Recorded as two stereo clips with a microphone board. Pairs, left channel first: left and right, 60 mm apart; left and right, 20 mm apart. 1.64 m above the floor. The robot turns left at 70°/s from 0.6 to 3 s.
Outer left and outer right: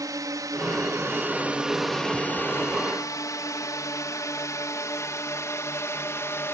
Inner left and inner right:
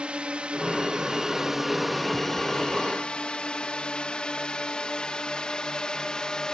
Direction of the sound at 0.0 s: 75° right (ahead or behind).